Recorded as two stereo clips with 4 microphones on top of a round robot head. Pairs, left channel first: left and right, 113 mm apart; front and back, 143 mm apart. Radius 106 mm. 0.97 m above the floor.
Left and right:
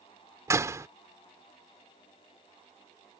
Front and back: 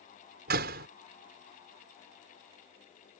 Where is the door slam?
155° right.